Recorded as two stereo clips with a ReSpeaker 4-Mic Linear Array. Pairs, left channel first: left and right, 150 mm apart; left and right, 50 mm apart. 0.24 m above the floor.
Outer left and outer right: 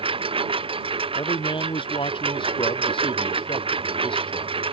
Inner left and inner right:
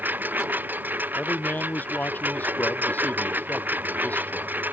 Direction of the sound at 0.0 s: 40° right (ahead or behind).